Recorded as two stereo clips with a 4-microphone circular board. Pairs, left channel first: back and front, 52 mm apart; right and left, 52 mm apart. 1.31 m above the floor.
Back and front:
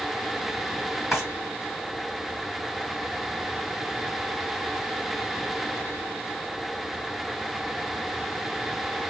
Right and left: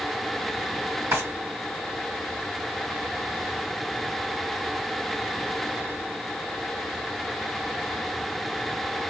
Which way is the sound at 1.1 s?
80° left.